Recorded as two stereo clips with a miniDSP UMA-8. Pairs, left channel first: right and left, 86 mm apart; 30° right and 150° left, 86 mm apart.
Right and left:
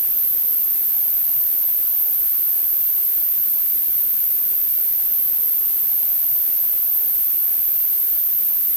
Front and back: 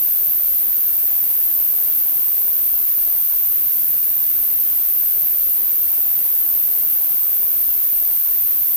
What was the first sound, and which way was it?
An insect, 65° right.